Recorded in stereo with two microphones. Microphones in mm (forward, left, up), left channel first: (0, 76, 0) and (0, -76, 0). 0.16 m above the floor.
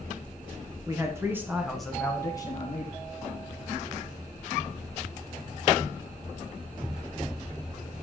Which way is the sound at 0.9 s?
25° right (ahead or behind).